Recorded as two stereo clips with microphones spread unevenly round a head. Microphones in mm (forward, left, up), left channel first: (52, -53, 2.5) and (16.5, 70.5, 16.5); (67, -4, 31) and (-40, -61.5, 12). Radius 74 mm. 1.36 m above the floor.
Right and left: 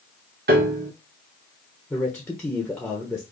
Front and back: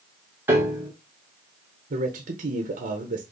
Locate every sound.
0.5 s a piano: 135° left, 1.3 m
1.9 s a man speaking: 155° right, 1.0 m